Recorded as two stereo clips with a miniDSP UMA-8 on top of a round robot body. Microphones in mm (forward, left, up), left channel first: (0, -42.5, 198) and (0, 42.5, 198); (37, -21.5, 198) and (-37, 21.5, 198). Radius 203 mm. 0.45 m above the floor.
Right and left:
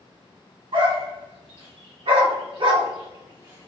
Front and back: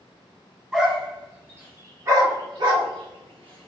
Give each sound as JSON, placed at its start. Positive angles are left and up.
{"t": 0.7, "sound": "a dog barking", "azimuth_deg": 70, "distance_m": 1.7}